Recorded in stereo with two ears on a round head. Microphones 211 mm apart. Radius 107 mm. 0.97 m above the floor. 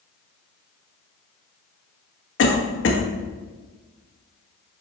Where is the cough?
60° left (ahead or behind), 1.4 m.